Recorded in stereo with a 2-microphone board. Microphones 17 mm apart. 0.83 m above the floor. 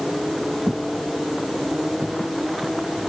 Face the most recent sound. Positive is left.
turn(degrees=70)  # may be behind; listen again after turning